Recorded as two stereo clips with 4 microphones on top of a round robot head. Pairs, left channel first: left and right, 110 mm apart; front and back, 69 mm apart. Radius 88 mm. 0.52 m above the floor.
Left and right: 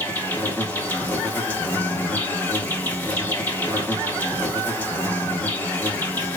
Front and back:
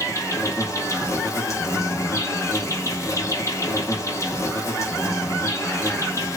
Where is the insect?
20° left, 1.1 m.